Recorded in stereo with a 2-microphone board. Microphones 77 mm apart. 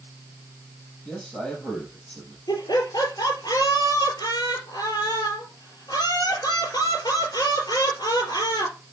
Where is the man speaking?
5° left (ahead or behind), 4.5 m.